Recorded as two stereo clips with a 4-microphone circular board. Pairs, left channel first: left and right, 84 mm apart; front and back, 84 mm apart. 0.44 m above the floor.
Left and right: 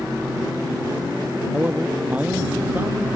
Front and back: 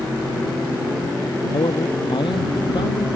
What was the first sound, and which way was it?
A man speaking, 20° right.